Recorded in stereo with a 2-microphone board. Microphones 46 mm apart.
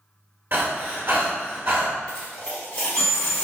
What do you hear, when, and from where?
0.5 s breathing: 45° right (ahead or behind), 1.2 m
2.1 s a dropped coin: 25° left (ahead or behind), 2.0 m